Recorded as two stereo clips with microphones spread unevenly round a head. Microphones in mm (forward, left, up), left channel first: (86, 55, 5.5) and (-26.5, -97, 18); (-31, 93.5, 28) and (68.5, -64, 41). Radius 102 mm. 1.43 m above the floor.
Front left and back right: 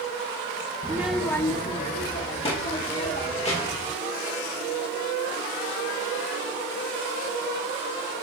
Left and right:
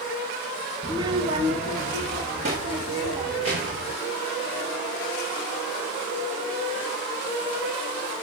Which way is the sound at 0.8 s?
120° right.